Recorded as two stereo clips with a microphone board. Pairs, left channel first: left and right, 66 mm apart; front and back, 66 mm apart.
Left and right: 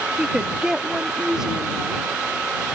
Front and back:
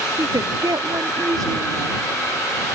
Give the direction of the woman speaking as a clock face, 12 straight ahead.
6 o'clock.